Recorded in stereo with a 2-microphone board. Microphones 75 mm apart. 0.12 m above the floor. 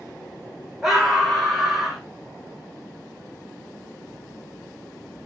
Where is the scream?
5° right (ahead or behind), 6 m; by 2.0 s centre (ahead or behind), 5.5 m.